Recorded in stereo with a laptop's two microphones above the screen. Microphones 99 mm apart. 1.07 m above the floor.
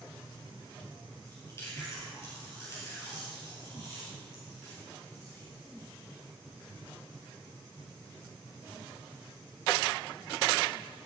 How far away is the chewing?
About 4 m.